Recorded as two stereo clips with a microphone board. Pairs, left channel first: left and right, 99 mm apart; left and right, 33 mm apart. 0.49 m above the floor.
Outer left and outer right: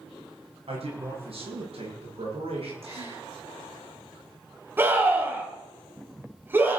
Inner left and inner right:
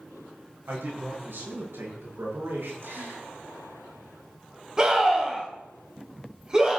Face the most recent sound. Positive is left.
turn(degrees=-20)  # may be behind; listen again after turning